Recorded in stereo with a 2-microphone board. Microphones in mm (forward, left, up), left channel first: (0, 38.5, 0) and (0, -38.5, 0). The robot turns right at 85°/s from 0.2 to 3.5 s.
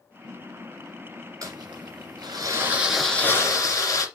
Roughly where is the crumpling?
Behind right.